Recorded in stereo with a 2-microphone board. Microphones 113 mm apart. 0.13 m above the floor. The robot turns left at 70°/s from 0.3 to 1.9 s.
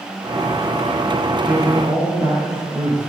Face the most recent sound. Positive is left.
turn(degrees=-40)